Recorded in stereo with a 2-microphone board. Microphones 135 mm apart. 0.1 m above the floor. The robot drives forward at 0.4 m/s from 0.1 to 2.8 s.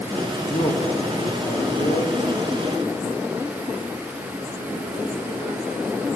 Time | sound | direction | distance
0.5 | a man speaking | 60° left (ahead or behind) | 3 m